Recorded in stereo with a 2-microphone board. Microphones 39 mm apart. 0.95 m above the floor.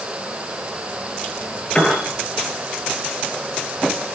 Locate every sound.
1.8 s a piano: 20° left (ahead or behind), 7.5 m